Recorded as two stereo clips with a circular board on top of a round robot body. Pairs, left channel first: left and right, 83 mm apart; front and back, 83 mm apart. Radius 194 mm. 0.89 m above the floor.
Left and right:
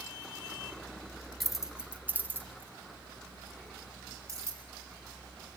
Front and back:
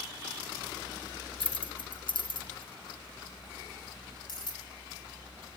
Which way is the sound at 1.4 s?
Straight ahead.